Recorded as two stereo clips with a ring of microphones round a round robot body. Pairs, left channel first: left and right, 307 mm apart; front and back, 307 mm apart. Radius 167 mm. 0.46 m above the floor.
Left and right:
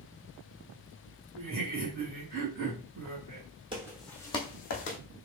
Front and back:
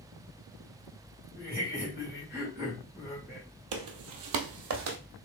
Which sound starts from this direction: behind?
Footsteps, at 3.7 s.